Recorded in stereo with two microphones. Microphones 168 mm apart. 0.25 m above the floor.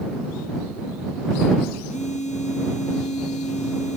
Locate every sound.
1.9 s a phone buzzing: 45° left (ahead or behind)